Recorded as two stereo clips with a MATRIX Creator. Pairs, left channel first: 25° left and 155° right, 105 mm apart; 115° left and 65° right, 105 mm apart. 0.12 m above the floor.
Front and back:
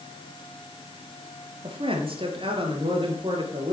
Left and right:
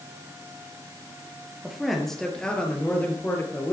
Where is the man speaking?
155° right, 2.5 m; by 3.7 s 175° left, 2.5 m.